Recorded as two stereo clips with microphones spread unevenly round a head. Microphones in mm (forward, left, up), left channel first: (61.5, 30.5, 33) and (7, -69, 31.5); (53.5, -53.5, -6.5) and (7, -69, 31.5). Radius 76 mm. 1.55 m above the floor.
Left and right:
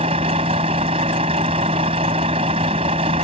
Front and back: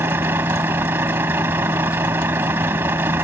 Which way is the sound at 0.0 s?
175° right.